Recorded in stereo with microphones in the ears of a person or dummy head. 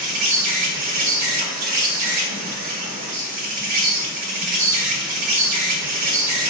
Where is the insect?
50° right (ahead or behind), 1.1 m.